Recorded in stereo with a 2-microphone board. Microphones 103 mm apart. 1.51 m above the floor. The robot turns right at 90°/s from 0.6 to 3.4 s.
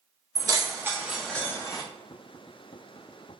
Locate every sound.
0.3 s keys jangling: 40° right (ahead or behind), 0.5 m; by 1.8 s 40° left (ahead or behind), 0.5 m